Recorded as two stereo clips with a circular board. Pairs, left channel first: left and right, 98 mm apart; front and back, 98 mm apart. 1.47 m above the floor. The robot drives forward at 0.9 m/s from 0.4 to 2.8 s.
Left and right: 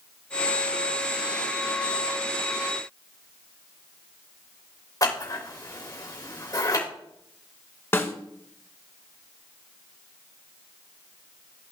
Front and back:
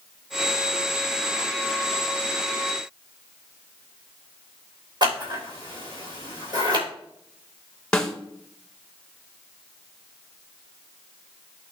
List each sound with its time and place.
5.0 s scissors: 140° left, 3.5 m
7.9 s a snare drum: 70° left, 1.2 m